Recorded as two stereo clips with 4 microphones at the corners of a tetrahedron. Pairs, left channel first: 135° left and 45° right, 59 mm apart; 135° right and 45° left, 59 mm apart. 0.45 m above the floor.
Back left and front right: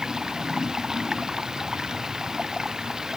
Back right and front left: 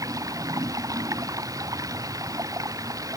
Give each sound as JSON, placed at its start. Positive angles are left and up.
{"t": 0.0, "sound": "running water", "azimuth_deg": 35}